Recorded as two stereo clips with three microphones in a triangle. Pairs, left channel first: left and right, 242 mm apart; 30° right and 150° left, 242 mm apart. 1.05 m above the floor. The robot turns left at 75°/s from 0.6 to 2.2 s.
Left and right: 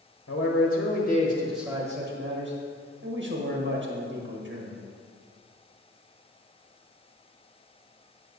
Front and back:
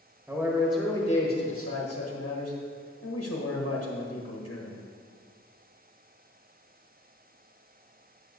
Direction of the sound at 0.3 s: 65° left.